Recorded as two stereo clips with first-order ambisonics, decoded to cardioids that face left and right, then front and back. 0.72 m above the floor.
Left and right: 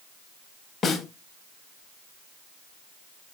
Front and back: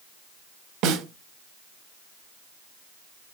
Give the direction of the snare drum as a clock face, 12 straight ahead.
7 o'clock.